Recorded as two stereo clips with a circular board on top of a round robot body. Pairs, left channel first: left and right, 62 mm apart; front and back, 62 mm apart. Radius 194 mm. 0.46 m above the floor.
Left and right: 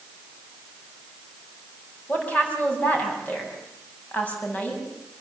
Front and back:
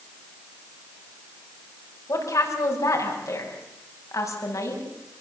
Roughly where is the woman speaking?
Ahead left.